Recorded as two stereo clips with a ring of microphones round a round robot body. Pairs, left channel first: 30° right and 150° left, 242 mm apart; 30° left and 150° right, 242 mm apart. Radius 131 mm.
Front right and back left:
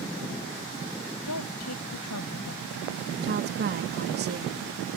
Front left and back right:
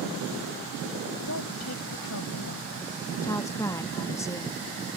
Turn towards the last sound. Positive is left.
turn(degrees=105)